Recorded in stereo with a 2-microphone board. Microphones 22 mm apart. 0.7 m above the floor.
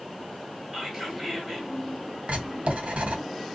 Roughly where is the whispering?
Centre.